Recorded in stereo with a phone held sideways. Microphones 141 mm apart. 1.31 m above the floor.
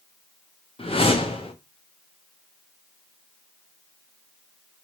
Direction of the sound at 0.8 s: 40° left (ahead or behind).